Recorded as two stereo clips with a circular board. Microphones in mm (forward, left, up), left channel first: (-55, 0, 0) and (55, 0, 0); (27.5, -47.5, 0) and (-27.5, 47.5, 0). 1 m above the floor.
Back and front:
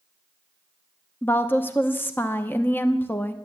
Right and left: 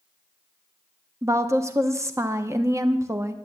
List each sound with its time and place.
1.2 s a woman speaking: 135° left, 0.8 m